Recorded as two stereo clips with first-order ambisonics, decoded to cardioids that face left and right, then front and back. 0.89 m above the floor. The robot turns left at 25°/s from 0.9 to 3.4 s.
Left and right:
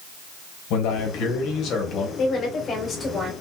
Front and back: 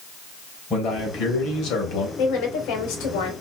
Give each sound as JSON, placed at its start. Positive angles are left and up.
{"t": 0.7, "sound": "a man speaking", "azimuth_deg": 60, "distance_m": 3.5}
{"t": 2.2, "sound": "a woman speaking", "azimuth_deg": 35, "distance_m": 3.0}